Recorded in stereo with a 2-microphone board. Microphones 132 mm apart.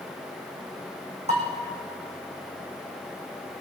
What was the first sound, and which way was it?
Dishes clattering, 55° right (ahead or behind).